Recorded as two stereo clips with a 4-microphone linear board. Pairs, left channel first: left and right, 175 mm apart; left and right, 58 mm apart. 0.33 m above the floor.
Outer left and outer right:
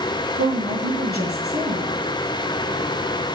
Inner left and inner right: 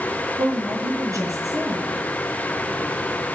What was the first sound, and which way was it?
A woman speaking, 70° right (ahead or behind).